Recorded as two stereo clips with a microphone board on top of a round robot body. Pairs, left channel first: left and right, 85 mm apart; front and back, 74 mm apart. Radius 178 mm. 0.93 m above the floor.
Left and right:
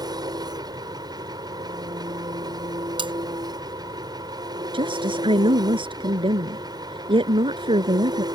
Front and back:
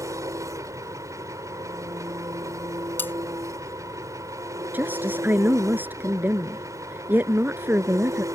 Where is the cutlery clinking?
65° right.